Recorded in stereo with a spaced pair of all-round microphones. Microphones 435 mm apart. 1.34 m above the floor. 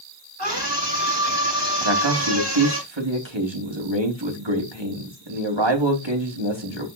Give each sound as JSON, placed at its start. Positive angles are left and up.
{"t": 0.4, "sound": "a scream", "side_deg": -65, "distance_m": 7.0}
{"t": 1.8, "sound": "a man speaking", "side_deg": -80, "distance_m": 3.5}